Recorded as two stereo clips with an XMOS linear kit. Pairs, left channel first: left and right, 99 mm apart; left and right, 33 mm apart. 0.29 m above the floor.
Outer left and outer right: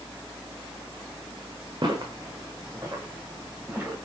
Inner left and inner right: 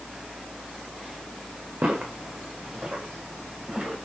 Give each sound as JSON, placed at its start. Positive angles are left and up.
{"t": 1.8, "sound": "footsteps", "side_deg": -50, "distance_m": 1.5}